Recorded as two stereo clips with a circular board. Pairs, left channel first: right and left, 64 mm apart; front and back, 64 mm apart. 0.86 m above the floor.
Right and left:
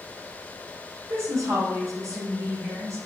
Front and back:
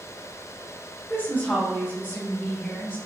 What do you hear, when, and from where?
1.1 s a woman speaking: 55° left, 1.2 m